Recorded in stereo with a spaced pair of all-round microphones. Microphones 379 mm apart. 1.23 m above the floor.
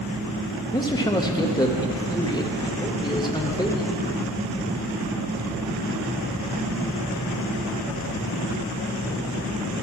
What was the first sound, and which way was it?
A man speaking, 10° left (ahead or behind).